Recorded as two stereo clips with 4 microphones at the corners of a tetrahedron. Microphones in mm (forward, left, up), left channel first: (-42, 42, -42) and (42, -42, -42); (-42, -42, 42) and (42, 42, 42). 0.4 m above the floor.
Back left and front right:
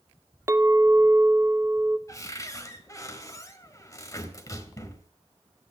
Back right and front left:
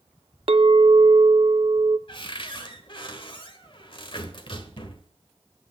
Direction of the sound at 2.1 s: 170° right.